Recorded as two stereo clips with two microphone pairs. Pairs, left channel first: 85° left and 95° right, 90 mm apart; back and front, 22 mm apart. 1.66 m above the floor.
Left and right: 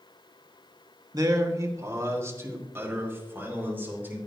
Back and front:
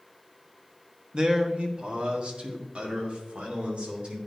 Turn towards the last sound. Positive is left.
turn(degrees=-25)